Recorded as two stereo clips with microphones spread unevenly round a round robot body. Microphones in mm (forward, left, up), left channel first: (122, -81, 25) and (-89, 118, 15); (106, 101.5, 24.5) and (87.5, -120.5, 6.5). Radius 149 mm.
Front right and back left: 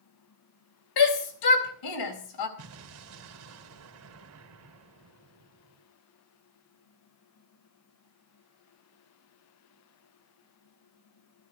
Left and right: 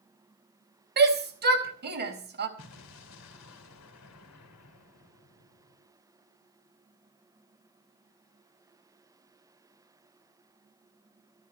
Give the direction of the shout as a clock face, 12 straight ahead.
2 o'clock.